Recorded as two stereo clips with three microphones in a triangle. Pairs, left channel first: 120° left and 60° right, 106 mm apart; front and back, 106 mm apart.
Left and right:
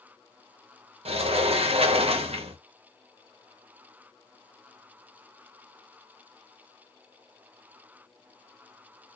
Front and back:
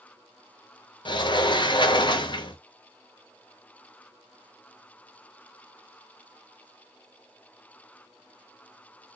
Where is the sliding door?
40° right, 0.8 m.